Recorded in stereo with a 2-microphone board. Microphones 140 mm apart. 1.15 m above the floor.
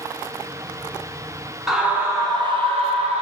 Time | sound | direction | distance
1.7 | a scream | centre (ahead or behind) | 0.7 m